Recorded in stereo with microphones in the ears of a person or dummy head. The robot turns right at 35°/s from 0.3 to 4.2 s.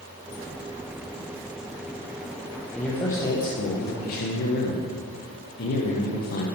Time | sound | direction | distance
2.8 | a man speaking | 5° left | 0.8 m